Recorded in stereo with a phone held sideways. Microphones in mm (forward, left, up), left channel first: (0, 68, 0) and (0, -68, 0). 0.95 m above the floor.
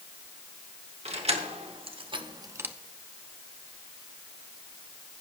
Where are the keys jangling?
50° right (ahead or behind), 1.9 m; by 2.8 s 10° right (ahead or behind), 0.5 m.